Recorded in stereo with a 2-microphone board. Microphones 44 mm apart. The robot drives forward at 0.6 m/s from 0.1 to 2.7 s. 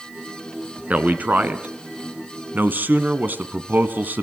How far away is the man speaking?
About 2 m.